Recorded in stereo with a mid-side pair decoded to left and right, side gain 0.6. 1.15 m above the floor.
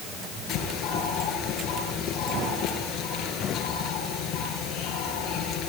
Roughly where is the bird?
Ahead left.